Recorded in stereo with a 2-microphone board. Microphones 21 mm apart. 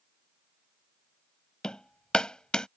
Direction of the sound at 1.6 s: 45° left (ahead or behind).